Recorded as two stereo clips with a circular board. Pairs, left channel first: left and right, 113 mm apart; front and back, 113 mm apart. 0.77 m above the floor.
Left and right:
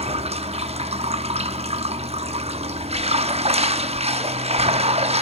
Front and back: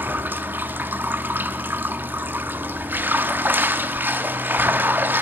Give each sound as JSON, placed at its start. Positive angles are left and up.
{"t": 0.0, "sound": "running water", "azimuth_deg": -105, "distance_m": 0.9}